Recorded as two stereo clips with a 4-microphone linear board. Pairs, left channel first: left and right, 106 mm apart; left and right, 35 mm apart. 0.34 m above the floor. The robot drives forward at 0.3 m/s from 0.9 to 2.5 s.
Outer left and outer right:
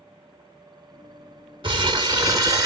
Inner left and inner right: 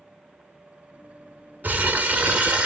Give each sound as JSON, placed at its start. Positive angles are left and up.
{"t": 1.6, "sound": "crumpling", "side_deg": -50, "distance_m": 0.6}